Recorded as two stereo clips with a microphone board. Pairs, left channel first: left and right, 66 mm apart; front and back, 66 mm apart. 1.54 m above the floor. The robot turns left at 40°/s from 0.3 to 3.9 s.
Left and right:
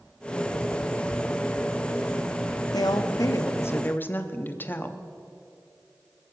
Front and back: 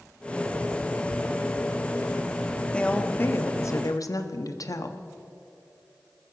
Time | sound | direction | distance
2.7 | a woman speaking | 75° left | 0.9 m